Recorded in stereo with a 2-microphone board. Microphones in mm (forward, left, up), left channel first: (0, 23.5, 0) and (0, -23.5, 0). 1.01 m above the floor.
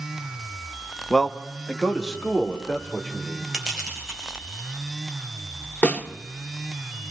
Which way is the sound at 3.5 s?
10° right (ahead or behind).